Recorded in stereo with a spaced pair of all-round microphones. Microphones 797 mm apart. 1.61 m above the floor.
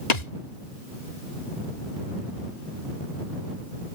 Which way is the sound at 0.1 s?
55° left (ahead or behind).